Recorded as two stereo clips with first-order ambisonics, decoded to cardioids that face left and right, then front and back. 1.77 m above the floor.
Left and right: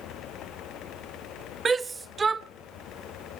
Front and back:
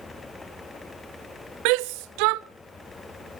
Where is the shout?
165° right, 0.6 m.